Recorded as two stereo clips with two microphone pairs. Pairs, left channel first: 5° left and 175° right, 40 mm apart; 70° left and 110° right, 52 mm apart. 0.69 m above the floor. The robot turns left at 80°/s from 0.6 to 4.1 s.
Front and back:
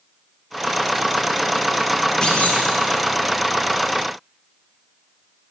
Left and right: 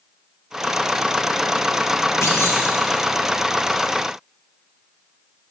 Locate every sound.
2.2 s a clunk: 70° left, 1.8 m; by 2.6 s 40° left, 1.8 m